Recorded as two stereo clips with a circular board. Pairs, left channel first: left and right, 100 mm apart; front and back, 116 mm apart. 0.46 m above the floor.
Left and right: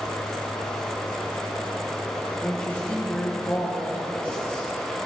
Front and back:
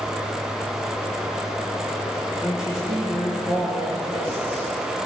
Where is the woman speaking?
15° left, 5.5 m.